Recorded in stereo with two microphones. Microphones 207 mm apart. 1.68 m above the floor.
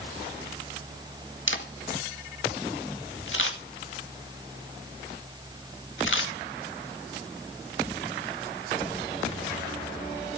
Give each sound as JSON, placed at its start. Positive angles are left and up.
{"t": 1.5, "sound": "a camera shutter", "side_deg": 70, "distance_m": 2.0}